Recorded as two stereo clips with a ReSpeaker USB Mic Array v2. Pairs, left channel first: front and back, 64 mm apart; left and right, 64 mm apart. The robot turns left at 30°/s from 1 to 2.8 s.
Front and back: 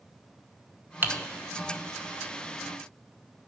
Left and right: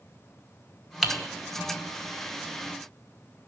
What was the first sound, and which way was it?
Typing on a keyboard, 175° right.